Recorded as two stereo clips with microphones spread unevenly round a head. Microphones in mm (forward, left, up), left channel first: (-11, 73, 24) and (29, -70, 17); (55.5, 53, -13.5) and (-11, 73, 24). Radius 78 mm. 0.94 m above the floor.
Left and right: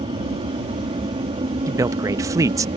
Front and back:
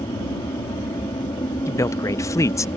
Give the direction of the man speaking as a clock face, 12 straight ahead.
12 o'clock.